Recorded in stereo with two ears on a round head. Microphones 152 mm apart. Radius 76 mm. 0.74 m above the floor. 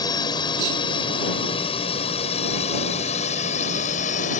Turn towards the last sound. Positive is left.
turn(degrees=45)  # may be behind; listen again after turning